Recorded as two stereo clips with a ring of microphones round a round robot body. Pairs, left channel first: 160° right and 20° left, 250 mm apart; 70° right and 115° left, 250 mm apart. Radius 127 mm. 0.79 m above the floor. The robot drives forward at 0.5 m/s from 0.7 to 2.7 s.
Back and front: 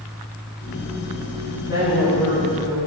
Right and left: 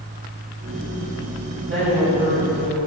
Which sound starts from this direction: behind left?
A woman speaking, at 1.6 s.